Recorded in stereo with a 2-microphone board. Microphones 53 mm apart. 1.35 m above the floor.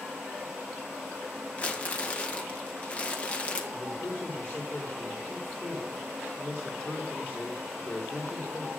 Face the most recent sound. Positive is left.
turn(degrees=40)  # may be behind; listen again after turning